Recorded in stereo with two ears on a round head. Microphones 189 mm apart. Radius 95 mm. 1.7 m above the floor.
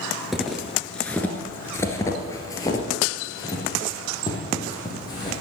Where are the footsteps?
Centre (ahead or behind), 1.8 m; by 5.4 s 20° left (ahead or behind), 4.5 m.